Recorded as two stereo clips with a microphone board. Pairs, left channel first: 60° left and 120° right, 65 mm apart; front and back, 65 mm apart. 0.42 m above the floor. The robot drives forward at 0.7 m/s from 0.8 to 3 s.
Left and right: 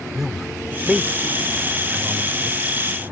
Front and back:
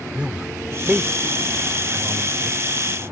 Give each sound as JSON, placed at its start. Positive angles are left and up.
{"t": 0.1, "sound": "a man speaking", "azimuth_deg": 165}